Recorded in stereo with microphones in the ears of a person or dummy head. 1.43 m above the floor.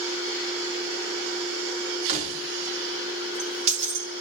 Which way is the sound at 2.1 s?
40° right (ahead or behind).